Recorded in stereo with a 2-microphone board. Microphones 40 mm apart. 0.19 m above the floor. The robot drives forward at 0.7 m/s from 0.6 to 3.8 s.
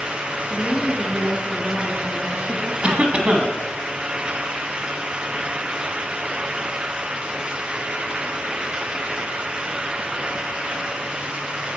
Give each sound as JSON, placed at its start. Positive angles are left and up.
{"t": 0.5, "sound": "a woman speaking", "side_deg": -35, "distance_m": 2.5}
{"t": 2.8, "sound": "a cough", "side_deg": -30, "distance_m": 1.3}